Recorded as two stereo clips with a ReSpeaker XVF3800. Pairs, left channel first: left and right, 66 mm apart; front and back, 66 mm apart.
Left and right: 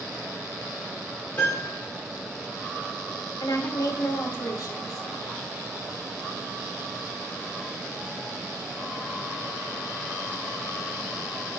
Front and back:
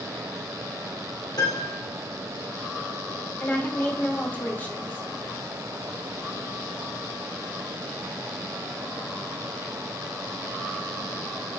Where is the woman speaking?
65° left, 2.5 m.